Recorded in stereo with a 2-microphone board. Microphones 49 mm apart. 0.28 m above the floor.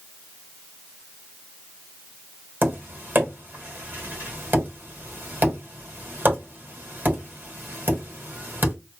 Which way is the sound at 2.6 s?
40° right (ahead or behind).